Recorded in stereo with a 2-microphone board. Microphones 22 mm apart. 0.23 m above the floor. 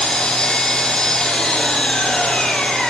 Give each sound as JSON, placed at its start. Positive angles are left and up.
{"t": 0.0, "sound": "an engine running", "side_deg": 45, "distance_m": 5.0}